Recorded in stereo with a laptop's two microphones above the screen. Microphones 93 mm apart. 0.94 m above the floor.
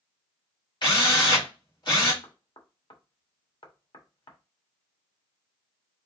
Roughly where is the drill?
Left.